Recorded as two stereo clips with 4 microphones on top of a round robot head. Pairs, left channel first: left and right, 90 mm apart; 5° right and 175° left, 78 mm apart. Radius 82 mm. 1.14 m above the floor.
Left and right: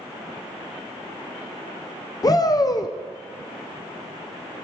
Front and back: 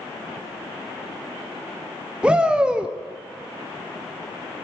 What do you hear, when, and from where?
2.2 s a shout: 100° left, 0.6 m